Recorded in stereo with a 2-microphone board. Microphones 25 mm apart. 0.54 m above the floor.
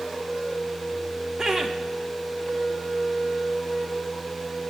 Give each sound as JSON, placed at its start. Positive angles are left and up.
{"t": 1.4, "sound": "laughter", "side_deg": -30, "distance_m": 0.8}